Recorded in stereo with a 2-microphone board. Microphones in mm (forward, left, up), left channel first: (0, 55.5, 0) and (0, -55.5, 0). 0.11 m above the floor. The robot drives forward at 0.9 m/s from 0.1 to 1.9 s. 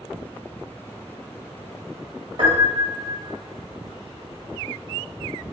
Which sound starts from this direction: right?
A piano, at 2.4 s.